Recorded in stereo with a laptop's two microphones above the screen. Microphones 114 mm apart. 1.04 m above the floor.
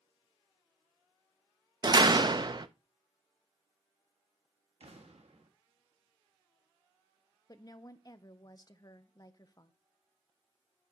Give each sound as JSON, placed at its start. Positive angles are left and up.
{"t": 1.8, "sound": "a door slam", "side_deg": -40, "distance_m": 0.5}
{"t": 4.8, "sound": "an explosion", "side_deg": -65, "distance_m": 1.4}
{"t": 7.5, "sound": "a woman speaking", "side_deg": 35, "distance_m": 0.7}